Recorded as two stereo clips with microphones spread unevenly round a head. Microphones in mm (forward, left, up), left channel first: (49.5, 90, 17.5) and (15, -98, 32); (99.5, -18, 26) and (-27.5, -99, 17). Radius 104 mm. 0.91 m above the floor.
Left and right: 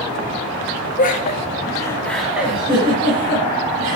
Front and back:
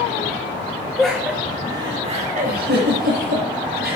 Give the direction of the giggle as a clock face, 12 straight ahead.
4 o'clock.